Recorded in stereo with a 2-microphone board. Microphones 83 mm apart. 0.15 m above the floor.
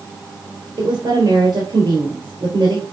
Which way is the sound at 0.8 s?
65° right (ahead or behind).